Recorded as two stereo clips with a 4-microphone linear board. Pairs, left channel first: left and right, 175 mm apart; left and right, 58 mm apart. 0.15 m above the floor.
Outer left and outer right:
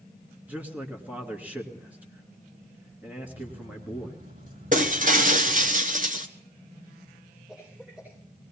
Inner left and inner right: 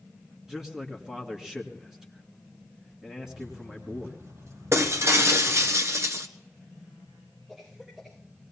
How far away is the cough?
About 9 m.